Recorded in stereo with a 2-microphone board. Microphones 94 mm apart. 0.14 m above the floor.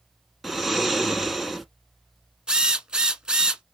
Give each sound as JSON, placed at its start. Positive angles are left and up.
{"t": 0.4, "sound": "snoring", "side_deg": 0, "distance_m": 1.0}
{"t": 2.5, "sound": "a drill", "side_deg": -10, "distance_m": 0.5}